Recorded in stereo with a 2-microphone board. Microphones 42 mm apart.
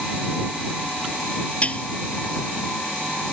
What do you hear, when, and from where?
1.6 s dishes clattering: 35° left (ahead or behind)